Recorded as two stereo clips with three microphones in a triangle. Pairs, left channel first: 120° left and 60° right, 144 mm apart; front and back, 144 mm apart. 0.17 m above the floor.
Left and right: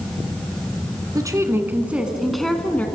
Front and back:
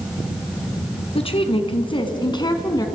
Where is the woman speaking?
10° right, 2.0 m; by 2.9 s 50° left, 1.9 m.